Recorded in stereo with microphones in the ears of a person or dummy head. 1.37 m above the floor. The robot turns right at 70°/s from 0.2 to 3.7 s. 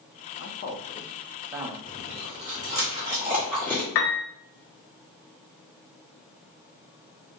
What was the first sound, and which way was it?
A man speaking, 65° left (ahead or behind).